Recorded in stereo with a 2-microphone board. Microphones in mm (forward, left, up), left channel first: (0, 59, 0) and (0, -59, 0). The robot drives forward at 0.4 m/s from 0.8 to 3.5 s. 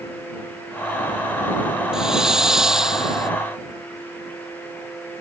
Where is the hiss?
5° right (ahead or behind).